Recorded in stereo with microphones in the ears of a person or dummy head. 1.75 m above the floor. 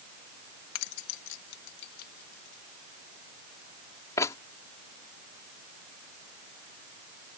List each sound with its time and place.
0.8 s keys jangling: 70° left (ahead or behind); by 4.4 s 15° left (ahead or behind)